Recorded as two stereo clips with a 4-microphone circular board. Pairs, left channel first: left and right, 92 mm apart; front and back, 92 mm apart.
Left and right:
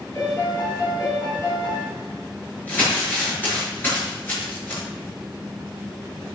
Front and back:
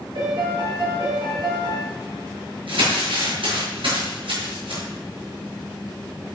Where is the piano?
150° left, 8 m.